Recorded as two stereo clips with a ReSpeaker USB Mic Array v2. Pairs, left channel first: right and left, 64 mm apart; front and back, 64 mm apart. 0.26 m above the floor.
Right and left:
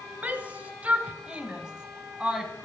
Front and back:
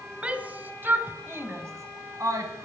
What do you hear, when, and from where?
0.2 s a shout: 130° left, 1.2 m; by 2.7 s 170° left, 2 m